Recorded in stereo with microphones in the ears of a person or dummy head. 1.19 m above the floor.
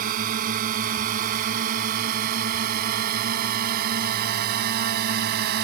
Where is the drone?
45° right (ahead or behind); by 5.7 s 55° right (ahead or behind).